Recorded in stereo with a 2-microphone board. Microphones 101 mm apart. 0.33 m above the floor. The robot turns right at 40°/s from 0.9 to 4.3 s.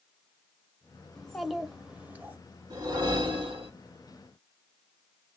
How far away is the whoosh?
About 1.7 m.